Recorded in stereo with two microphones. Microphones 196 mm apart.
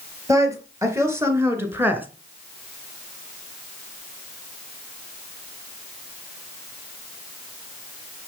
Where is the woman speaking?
15° right (ahead or behind), 4 m; by 2.1 s 10° right (ahead or behind), 2 m.